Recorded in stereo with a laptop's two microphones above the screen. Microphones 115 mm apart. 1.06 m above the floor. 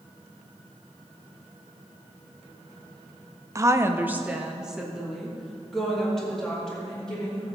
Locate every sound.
3.5 s a woman speaking: 30° right (ahead or behind), 0.5 m; by 7.5 s 5° left (ahead or behind), 3 m